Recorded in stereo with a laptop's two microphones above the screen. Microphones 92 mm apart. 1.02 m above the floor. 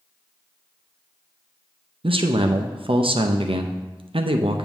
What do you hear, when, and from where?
2.0 s a man speaking: 75° right (ahead or behind), 0.5 m